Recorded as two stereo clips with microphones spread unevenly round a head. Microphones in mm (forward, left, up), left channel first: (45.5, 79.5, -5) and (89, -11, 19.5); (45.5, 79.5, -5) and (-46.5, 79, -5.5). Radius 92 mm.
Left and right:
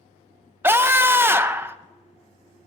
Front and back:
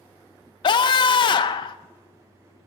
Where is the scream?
10° left, 0.9 m.